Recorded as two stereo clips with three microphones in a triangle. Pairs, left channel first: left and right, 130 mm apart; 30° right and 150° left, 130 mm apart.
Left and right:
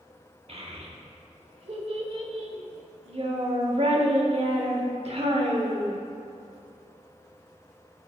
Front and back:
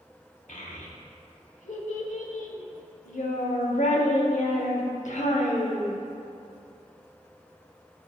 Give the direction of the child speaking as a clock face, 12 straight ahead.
2 o'clock.